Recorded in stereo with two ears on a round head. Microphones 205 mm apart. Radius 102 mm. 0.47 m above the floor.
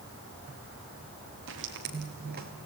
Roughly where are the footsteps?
Right.